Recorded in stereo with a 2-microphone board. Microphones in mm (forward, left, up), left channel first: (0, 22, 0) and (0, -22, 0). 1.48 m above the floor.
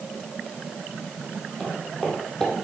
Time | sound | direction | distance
1.6 | footsteps | 10° left (ahead or behind) | 2.5 m